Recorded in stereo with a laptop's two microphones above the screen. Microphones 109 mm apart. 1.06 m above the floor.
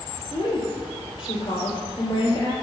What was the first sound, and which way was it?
A woman speaking, 55° left (ahead or behind).